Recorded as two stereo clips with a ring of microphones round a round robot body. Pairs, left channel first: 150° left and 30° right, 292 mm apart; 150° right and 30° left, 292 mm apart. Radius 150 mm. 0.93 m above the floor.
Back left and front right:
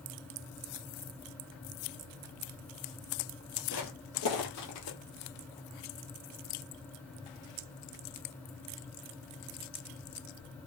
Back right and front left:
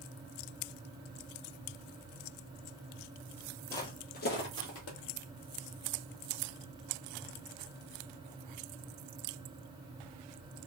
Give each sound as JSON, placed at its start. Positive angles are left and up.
{"t": 3.7, "sound": "footsteps", "azimuth_deg": 130, "distance_m": 1.1}